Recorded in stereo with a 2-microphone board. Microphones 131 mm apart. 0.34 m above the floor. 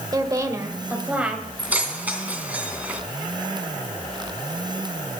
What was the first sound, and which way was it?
A woman speaking, 30° right (ahead or behind).